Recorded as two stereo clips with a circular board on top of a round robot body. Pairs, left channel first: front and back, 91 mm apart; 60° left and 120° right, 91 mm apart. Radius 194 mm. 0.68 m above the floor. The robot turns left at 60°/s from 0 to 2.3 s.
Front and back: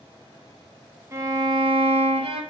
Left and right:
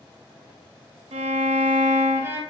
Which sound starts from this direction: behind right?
A violin, at 1.1 s.